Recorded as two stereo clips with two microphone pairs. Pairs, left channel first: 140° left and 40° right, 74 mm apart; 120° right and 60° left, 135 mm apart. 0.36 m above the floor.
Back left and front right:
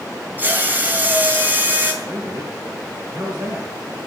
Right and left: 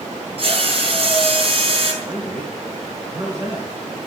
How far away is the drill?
About 3.5 m.